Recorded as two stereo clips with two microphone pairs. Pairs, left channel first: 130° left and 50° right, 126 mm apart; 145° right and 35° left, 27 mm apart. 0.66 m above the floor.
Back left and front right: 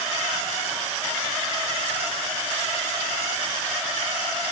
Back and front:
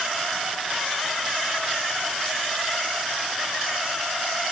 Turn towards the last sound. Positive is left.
No sound to turn to.